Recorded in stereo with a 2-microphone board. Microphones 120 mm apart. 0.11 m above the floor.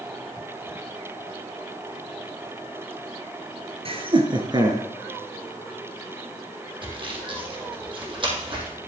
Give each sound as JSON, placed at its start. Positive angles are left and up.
{"t": 3.9, "sound": "laughter", "side_deg": -50, "distance_m": 1.9}
{"t": 6.8, "sound": "sawing", "side_deg": -45, "distance_m": 2.5}